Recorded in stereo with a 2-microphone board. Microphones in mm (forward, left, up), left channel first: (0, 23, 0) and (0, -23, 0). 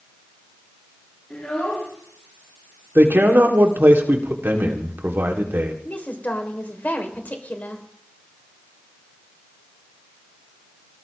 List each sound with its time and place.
1.3 s a child speaking: 30° left (ahead or behind), 8.5 m
3.0 s a man speaking: 55° right (ahead or behind), 2.5 m
5.8 s a woman speaking: 40° left (ahead or behind), 3 m